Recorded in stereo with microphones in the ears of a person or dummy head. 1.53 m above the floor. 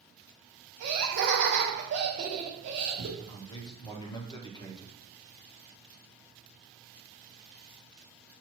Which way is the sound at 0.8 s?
65° right (ahead or behind).